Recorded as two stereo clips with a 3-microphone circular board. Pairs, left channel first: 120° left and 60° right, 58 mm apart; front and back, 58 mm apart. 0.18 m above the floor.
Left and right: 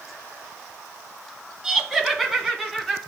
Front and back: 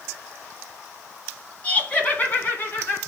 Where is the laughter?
15° left, 1.5 m; by 3.0 s 35° left, 2 m.